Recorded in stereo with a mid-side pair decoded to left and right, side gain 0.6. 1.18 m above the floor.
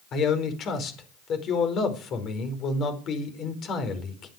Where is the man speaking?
50° left, 5 m.